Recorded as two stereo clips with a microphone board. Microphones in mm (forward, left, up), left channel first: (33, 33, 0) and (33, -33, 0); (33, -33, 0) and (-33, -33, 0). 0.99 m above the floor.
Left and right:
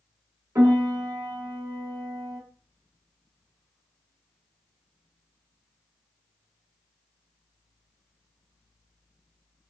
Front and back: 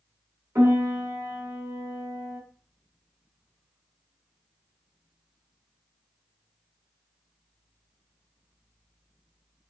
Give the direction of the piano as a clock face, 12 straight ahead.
4 o'clock.